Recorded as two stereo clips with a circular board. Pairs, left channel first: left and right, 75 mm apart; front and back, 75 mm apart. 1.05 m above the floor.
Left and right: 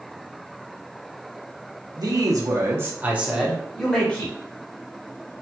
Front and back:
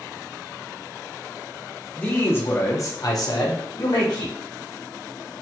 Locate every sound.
2.0 s a man speaking: 65° right, 1.0 m; by 4.3 s 25° left, 1.0 m